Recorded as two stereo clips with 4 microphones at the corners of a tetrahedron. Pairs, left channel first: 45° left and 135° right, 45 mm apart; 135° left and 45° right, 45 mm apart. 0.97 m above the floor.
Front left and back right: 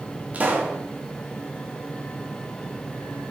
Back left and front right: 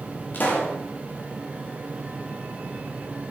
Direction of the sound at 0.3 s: 170° left.